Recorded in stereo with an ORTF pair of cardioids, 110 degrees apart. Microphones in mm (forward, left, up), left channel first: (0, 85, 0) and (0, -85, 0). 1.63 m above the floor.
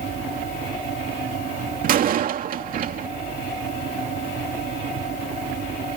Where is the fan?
45° right.